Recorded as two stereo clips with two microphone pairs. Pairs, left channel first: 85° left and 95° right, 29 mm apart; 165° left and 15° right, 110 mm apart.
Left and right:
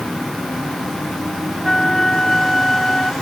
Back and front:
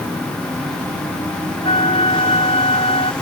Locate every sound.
1.6 s a flute: 160° left